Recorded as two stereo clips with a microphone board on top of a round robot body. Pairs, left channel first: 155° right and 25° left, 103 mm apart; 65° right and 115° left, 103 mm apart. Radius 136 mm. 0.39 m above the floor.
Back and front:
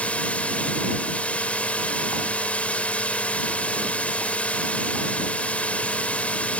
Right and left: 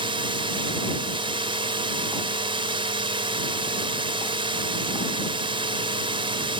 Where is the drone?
125° left.